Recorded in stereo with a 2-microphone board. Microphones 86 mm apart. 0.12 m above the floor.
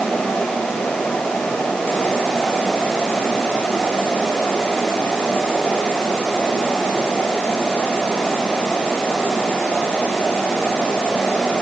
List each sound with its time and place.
Only background noise.